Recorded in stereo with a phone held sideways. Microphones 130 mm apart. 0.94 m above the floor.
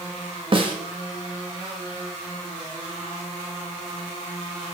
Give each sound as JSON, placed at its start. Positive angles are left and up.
{"t": 0.5, "sound": "a snare drum", "side_deg": -40, "distance_m": 1.9}